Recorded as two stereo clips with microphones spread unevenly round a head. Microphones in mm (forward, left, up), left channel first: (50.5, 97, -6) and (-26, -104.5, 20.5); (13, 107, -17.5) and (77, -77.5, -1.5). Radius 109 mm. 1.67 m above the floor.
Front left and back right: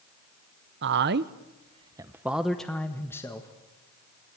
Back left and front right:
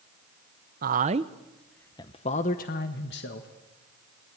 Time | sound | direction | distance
0.8 | a man speaking | 100° right | 0.9 m